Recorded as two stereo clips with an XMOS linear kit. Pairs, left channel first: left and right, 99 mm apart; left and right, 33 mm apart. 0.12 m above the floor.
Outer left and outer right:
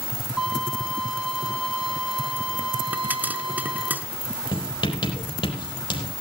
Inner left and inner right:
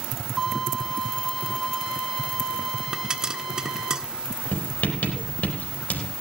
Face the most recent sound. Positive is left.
turn(degrees=65)  # may be behind; listen again after turning